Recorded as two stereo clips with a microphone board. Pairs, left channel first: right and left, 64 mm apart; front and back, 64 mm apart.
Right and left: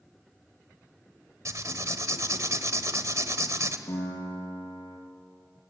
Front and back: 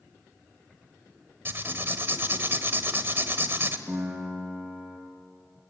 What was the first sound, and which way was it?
Writing, 125° left.